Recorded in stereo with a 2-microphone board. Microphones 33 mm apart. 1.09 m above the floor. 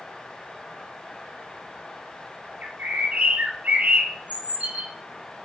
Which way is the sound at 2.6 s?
45° right (ahead or behind).